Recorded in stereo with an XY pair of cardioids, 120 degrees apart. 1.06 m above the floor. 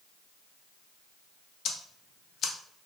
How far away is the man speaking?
No man speaking in this recording.